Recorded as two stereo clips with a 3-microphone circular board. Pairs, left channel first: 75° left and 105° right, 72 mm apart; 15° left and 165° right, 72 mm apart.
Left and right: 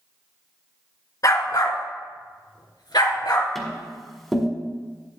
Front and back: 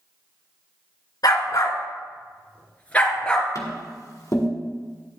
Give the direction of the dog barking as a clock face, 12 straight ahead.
11 o'clock.